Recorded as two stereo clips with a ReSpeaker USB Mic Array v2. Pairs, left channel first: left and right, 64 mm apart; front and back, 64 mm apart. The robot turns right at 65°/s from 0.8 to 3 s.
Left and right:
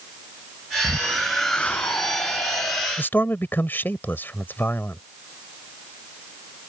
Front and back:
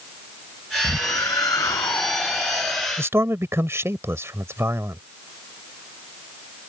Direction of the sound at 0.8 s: 30° right.